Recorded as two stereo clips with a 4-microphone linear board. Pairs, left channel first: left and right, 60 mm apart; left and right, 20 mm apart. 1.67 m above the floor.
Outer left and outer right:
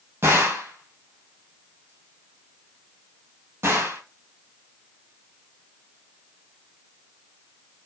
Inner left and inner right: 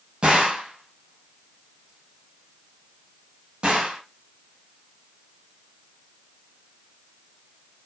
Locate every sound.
0.2 s a gunshot: 45° right (ahead or behind), 2 m